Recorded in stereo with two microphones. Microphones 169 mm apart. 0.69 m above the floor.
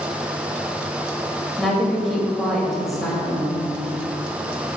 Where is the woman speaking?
Centre (ahead or behind), 2.5 m.